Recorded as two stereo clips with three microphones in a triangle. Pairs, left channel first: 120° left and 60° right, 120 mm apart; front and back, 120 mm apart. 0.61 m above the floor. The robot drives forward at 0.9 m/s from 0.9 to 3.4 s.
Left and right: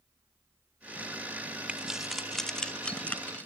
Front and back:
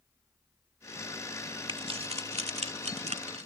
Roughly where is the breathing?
No breathing in this recording.